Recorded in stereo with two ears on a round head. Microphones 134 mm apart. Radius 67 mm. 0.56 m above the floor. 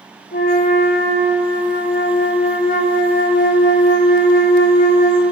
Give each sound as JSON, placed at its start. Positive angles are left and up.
{"t": 0.3, "sound": "a flute", "side_deg": 55, "distance_m": 1.2}